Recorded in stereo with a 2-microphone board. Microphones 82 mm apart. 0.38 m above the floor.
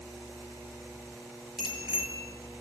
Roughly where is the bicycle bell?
Centre.